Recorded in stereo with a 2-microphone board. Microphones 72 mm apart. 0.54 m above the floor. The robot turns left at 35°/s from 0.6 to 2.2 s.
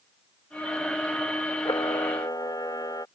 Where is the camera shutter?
80° left; by 3.1 s 65° left (ahead or behind).